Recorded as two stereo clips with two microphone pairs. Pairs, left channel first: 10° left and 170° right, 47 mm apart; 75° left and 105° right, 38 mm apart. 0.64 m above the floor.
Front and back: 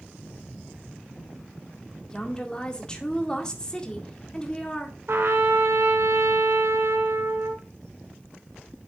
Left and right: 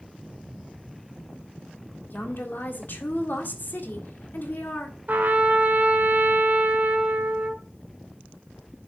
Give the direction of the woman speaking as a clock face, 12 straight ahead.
9 o'clock.